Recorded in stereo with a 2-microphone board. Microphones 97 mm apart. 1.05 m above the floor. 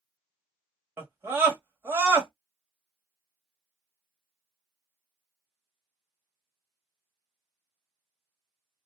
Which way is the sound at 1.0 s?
25° right (ahead or behind).